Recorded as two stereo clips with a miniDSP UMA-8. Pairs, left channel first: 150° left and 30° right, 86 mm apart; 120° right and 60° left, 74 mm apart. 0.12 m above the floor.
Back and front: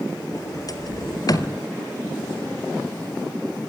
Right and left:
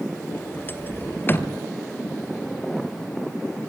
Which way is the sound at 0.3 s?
175° right.